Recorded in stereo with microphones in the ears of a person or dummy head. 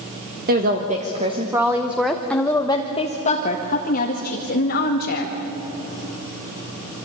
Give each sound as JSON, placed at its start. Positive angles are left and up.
{"t": 0.5, "sound": "a woman speaking", "side_deg": -45, "distance_m": 1.5}